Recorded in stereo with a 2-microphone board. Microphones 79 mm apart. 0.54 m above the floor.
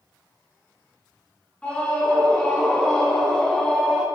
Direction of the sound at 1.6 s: 15° left (ahead or behind).